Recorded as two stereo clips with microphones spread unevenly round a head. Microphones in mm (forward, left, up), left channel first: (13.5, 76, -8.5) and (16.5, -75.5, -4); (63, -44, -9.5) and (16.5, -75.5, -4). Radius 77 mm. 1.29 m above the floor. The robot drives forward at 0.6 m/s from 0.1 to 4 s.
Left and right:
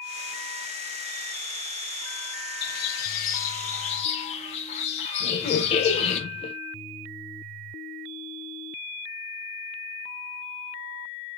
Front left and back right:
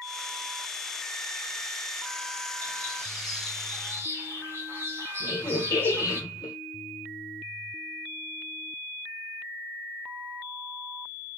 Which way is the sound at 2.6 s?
95° left.